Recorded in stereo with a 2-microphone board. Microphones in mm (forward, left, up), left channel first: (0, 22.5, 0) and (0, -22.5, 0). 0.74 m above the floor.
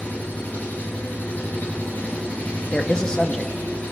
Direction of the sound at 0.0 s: 40° left (ahead or behind).